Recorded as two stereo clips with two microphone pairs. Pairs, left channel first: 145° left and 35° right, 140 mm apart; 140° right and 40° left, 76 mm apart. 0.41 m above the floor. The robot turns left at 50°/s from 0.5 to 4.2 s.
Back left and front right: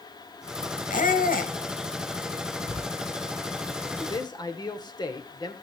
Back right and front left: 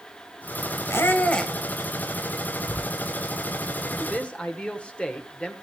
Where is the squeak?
170° left, 1.2 m; by 1.5 s 135° left, 1.2 m.